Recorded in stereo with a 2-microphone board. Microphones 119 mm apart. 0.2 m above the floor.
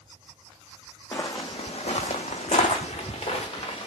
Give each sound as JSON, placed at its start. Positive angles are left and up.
{"t": 1.1, "sound": "footsteps", "side_deg": 20, "distance_m": 0.7}